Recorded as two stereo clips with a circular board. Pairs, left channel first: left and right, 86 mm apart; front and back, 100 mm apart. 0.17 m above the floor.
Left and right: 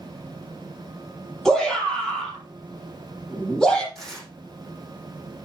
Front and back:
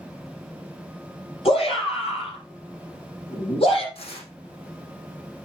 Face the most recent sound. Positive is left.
turn(degrees=5)